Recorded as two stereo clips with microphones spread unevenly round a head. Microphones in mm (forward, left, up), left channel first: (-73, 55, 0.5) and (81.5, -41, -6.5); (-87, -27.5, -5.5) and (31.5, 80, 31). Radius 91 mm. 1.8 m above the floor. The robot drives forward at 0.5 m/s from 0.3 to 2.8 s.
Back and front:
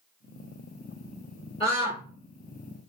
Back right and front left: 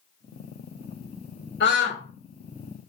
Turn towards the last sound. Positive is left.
turn(degrees=-150)